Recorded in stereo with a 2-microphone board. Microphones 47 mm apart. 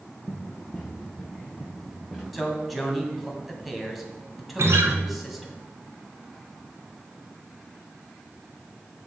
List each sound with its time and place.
0.3 s running footsteps: 25° left (ahead or behind), 2.5 m; by 2.2 s centre (ahead or behind), 3.5 m
2.3 s a man speaking: centre (ahead or behind), 2.5 m
4.6 s a guitar: 70° right (ahead or behind), 1.5 m